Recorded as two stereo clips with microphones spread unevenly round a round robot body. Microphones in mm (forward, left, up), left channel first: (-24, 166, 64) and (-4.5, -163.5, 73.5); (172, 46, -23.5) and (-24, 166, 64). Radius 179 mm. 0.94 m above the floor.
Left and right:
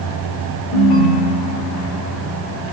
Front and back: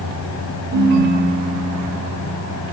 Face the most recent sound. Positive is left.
turn(degrees=110)